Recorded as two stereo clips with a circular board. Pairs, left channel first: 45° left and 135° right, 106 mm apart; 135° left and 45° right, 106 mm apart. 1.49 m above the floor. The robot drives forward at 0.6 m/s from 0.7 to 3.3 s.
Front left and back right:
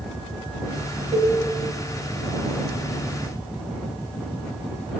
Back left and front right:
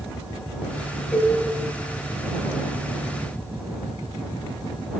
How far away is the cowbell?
About 1.9 m.